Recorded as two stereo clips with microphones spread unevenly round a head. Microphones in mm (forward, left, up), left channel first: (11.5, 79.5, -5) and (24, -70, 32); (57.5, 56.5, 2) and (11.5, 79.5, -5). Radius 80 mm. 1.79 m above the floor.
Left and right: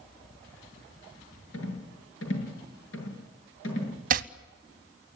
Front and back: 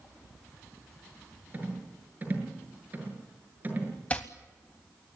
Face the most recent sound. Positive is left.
turn(degrees=-95)